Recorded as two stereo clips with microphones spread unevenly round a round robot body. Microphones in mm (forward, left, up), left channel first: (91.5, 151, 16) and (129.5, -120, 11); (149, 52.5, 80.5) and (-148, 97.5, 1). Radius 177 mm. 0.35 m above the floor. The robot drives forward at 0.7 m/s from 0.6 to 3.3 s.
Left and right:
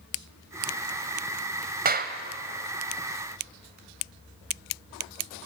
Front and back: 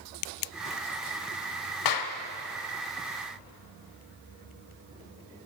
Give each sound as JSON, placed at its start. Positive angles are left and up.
{"t": 1.9, "sound": "a clap", "azimuth_deg": -30, "distance_m": 1.7}